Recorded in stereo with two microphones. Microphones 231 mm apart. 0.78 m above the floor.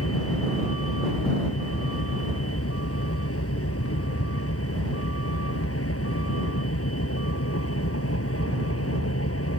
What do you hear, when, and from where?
0.0 s a vehicle: 85° left